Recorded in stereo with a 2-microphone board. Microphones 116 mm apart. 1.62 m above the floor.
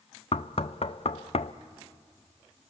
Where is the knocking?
60° left (ahead or behind), 0.5 m.